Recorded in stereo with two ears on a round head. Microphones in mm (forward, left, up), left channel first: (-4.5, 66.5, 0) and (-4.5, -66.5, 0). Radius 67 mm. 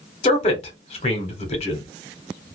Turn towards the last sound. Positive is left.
turn(degrees=40)  # may be behind; listen again after turning